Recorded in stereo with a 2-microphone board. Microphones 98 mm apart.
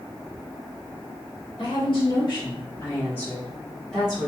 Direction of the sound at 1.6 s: 65° left (ahead or behind).